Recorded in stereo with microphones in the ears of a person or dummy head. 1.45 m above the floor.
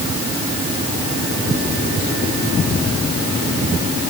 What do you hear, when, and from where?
Only background noise.